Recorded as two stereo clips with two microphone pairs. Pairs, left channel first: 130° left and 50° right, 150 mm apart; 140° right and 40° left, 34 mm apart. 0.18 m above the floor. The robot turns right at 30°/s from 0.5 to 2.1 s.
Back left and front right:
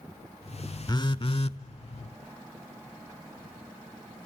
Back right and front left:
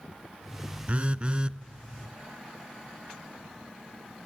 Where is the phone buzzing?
75° left, 0.6 m; by 1.6 s 95° left, 0.6 m.